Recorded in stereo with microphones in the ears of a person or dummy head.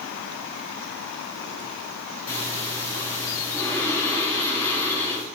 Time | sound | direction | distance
2.3 | breathing | 10° left (ahead or behind) | 7 m